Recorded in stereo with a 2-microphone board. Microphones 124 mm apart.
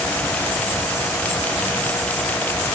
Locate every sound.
Only background noise.